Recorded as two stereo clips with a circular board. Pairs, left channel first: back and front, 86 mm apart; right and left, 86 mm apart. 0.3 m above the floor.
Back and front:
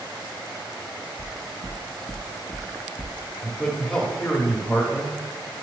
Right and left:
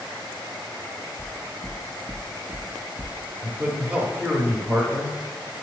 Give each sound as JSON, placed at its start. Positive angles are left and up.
{"t": 1.2, "sound": "footsteps", "azimuth_deg": 15, "distance_m": 1.1}
{"t": 3.4, "sound": "a man speaking", "azimuth_deg": 120, "distance_m": 0.9}